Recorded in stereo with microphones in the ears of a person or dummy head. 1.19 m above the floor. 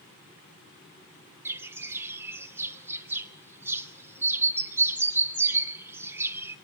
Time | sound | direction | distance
1.4 | a bird | 15° right (ahead or behind) | 1.2 m